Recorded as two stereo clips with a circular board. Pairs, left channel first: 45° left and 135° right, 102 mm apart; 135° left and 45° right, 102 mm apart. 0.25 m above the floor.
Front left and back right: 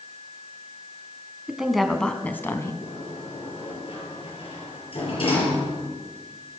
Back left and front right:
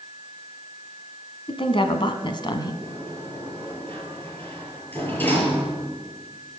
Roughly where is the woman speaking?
Behind left.